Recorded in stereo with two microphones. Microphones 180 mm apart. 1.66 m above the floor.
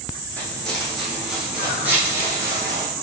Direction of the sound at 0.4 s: 5° left (ahead or behind).